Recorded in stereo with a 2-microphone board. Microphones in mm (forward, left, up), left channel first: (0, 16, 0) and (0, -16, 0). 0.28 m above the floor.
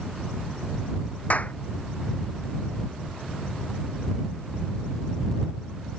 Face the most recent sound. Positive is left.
turn(degrees=50)  # may be behind; listen again after turning